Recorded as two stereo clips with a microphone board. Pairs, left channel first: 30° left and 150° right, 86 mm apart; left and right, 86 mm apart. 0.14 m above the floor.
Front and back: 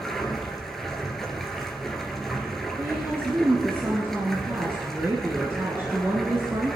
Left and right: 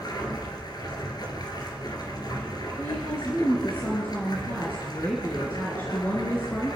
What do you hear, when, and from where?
0.0 s running water: 115° left, 2 m
2.8 s a woman speaking: 150° left, 2.5 m